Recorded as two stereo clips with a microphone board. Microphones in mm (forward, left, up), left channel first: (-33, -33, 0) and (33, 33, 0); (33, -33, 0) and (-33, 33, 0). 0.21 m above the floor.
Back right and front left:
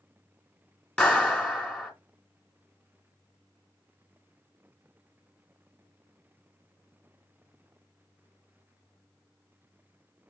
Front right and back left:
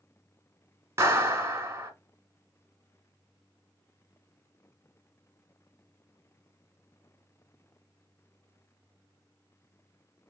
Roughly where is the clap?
Behind left.